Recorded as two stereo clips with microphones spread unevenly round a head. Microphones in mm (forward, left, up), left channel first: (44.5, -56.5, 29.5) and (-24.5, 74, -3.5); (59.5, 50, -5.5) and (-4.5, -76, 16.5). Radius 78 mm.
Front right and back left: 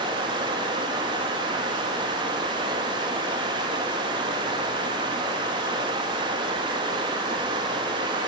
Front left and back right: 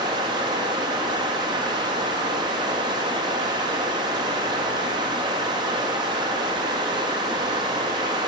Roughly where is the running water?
Behind.